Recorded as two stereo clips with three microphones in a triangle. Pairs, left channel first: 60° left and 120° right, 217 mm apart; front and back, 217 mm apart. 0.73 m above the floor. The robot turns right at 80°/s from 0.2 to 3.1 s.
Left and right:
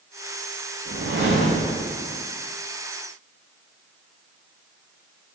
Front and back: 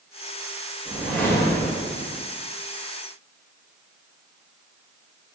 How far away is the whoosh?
About 1.7 m.